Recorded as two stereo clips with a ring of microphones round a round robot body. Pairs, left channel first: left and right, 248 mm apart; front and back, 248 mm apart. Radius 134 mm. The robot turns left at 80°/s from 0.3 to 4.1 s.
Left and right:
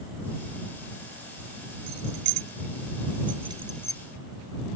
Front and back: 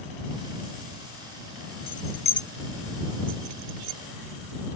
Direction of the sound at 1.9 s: 30° right.